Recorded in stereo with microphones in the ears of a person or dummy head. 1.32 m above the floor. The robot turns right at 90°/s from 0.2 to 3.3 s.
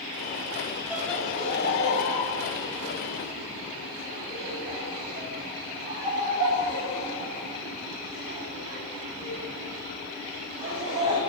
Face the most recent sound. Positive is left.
turn(degrees=-25)  # may be behind; listen again after turning